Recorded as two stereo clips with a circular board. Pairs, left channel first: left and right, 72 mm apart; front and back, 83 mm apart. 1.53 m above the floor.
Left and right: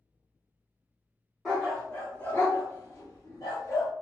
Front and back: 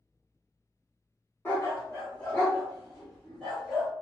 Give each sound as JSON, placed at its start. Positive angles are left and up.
{"t": 1.4, "sound": "a dog barking", "azimuth_deg": 10, "distance_m": 1.1}